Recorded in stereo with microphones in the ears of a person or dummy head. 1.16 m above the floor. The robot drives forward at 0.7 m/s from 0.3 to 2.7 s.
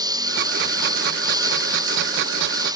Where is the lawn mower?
20° right (ahead or behind).